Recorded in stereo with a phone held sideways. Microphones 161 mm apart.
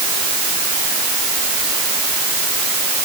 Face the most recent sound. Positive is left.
No sound to turn to.